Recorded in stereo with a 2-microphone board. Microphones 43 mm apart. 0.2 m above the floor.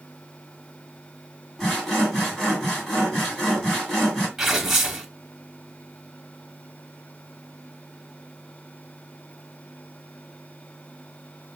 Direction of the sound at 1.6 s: 10° left (ahead or behind).